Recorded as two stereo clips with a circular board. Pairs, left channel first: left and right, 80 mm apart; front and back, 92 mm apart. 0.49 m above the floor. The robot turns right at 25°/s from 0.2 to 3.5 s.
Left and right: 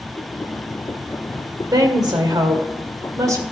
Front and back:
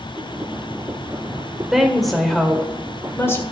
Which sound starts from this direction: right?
A woman speaking, at 1.7 s.